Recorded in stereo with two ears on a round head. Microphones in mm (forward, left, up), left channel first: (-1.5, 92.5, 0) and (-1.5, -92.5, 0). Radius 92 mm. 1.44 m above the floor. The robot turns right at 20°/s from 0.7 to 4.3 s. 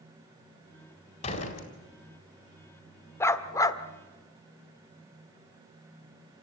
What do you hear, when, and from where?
1.2 s a door slam: 35° left (ahead or behind), 4 m; by 1.7 s 45° left (ahead or behind), 4 m
3.2 s a dog barking: 10° left (ahead or behind), 1.1 m; by 3.8 s 15° left (ahead or behind), 1.1 m